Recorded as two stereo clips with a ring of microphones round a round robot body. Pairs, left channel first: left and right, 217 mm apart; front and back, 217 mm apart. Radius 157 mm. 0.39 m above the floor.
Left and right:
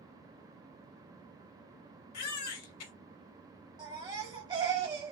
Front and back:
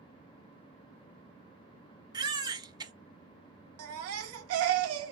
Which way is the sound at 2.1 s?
105° left.